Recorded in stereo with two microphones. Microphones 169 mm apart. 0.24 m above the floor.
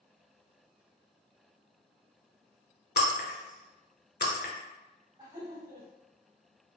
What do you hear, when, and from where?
3.0 s breaking glass: 80° left, 0.7 m
5.2 s laughter: 25° right (ahead or behind), 1.4 m